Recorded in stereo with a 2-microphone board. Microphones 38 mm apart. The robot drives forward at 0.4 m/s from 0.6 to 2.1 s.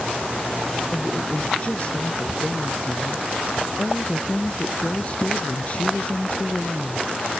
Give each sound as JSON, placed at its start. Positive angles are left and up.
{"t": 0.9, "sound": "a woman speaking", "side_deg": 35}